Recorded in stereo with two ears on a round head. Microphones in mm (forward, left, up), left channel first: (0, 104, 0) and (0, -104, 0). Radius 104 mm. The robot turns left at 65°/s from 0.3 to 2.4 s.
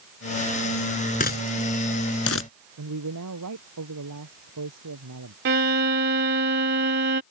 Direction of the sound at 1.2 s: 40° left (ahead or behind).